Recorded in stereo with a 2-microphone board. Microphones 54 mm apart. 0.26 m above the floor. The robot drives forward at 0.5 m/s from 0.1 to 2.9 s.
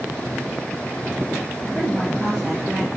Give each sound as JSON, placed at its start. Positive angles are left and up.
{"t": 1.6, "sound": "a woman speaking", "side_deg": -15, "distance_m": 3.5}